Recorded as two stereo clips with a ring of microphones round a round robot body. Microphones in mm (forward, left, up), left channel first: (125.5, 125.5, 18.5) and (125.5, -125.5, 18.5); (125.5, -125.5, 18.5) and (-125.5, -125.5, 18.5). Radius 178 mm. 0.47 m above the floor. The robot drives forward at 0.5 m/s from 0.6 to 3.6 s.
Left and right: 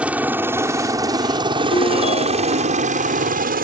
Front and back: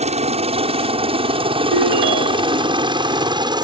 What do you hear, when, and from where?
0.0 s a helicopter: 170° right; by 3.6 s 120° right
1.7 s a ringtone: 165° left